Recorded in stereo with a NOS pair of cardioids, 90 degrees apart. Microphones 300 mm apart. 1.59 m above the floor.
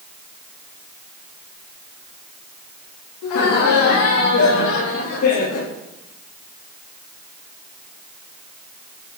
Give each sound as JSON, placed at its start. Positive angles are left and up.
{"t": 3.2, "sound": "laughter", "azimuth_deg": 70, "distance_m": 4.0}